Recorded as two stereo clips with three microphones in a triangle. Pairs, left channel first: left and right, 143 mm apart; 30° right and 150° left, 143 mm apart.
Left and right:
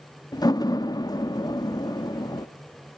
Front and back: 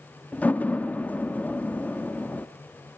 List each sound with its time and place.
0.3 s a door slam: 45° left, 0.8 m